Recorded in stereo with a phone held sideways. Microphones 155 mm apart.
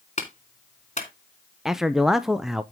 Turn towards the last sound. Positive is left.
turn(degrees=-5)  # may be behind; listen again after turning